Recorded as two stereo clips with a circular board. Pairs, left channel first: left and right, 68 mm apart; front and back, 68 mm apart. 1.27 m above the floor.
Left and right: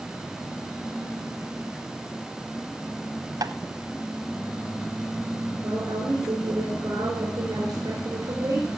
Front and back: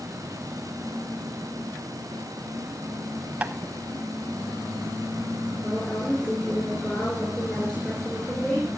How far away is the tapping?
About 0.8 m.